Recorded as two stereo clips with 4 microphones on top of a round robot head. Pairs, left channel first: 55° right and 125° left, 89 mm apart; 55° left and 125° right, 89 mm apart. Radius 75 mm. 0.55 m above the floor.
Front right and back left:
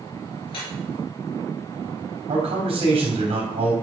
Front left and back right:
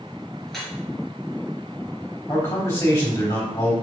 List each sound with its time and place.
0.5 s dripping: 30° right, 2.5 m
2.3 s a man speaking: 120° left, 3 m